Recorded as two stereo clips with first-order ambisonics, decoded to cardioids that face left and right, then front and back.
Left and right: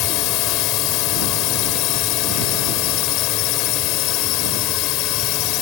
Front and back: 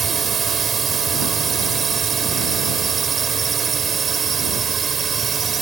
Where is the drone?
115° left.